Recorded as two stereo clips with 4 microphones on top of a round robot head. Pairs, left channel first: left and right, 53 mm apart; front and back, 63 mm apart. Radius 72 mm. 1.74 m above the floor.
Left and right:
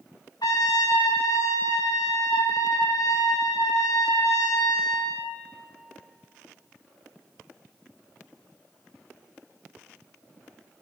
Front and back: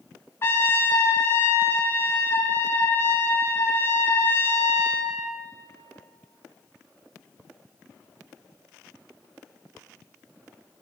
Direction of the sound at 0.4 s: 50° left.